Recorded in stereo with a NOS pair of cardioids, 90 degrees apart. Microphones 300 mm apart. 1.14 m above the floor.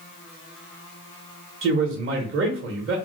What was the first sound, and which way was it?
A man speaking, 40° right.